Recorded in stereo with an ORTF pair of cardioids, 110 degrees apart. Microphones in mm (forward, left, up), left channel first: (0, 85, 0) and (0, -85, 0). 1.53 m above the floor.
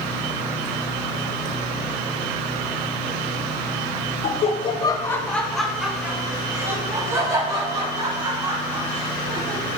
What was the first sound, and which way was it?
Laughter, 50° left.